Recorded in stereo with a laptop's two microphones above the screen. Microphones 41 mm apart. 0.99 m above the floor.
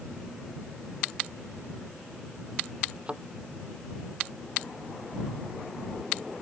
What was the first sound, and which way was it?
A thud, 25° right (ahead or behind).